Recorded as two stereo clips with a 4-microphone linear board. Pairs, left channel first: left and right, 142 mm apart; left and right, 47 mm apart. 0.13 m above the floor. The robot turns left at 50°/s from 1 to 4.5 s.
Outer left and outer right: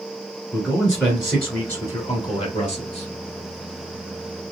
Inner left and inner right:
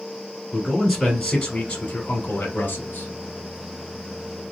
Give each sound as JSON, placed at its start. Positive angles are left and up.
{"t": 0.5, "sound": "a man speaking", "azimuth_deg": 180, "distance_m": 1.5}